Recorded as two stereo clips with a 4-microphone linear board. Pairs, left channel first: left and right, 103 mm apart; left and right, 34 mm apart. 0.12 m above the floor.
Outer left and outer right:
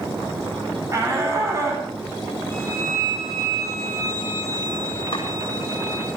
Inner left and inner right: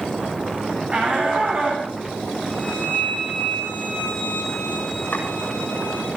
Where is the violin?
30° left (ahead or behind), 9 m.